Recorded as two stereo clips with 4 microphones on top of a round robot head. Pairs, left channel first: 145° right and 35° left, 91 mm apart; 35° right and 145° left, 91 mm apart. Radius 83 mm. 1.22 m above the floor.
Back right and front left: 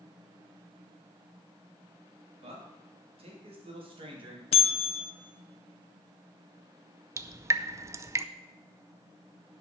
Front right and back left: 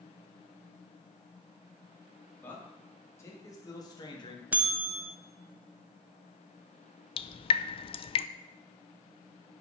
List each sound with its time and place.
2.4 s a man speaking: 40° left, 3.5 m; by 4.4 s straight ahead, 2 m
4.5 s a bell: 140° right, 0.9 m
7.2 s dripping: 25° right, 0.5 m